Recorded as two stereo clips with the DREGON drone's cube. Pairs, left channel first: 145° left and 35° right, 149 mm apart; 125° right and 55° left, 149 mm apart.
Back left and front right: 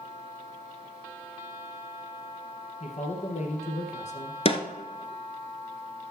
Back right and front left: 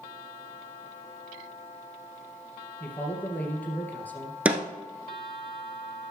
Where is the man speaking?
160° left, 2 m.